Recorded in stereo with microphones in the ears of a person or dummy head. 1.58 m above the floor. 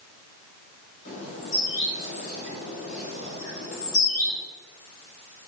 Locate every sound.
1.1 s a bird: 40° left (ahead or behind), 1.7 m